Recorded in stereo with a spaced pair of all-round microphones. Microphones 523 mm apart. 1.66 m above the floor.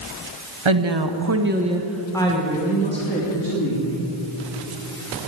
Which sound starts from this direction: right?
A woman speaking, at 0.7 s.